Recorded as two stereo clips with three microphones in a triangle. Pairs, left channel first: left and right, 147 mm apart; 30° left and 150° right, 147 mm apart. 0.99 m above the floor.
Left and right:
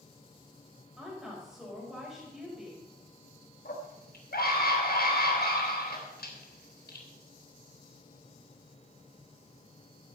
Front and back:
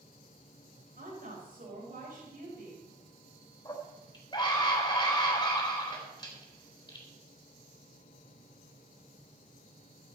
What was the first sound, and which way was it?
A woman speaking, 175° right.